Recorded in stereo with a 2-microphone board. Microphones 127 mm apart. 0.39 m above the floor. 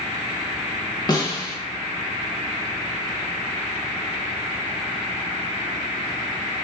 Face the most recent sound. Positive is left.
turn(degrees=30)  # may be behind; listen again after turning